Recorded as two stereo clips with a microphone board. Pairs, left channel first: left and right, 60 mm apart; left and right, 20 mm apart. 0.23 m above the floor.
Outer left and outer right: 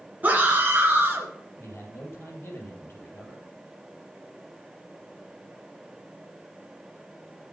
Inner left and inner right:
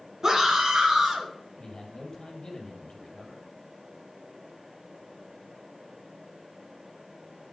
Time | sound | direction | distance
0.2 | a scream | 25° right (ahead or behind) | 2.5 m
1.6 | a man speaking | 40° left (ahead or behind) | 6 m